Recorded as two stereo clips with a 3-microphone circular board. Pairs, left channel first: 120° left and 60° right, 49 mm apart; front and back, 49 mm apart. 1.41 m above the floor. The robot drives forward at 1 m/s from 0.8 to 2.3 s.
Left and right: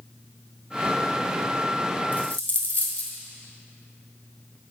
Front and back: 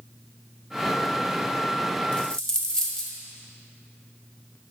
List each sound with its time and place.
2.1 s a dropped coin: 70° left, 1.5 m; by 3.1 s 80° left, 1.5 m